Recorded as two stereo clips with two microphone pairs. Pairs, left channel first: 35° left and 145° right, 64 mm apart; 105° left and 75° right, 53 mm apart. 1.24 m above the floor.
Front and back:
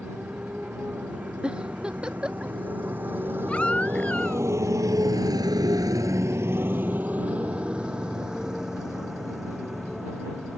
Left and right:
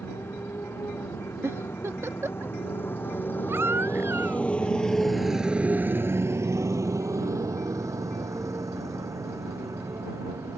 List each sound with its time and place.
0.0 s a motorcycle: 140° left; by 10.6 s 60° right
1.4 s a giggle: 75° right
3.5 s a baby crying: 35° right